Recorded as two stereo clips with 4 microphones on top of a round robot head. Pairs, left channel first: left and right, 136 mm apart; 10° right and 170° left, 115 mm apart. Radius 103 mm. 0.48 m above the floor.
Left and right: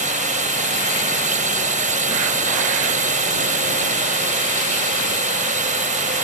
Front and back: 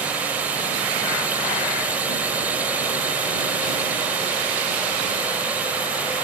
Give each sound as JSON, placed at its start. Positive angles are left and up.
{"t": 0.0, "sound": "a drone", "azimuth_deg": -110}